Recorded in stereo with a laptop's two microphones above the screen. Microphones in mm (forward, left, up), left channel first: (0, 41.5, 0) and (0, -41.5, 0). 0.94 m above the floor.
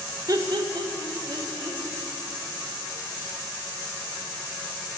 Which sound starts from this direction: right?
Laughter, at 0.3 s.